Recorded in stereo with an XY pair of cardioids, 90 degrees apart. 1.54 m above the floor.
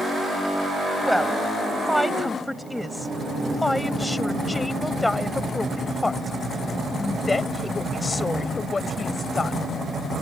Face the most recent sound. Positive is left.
turn(degrees=40)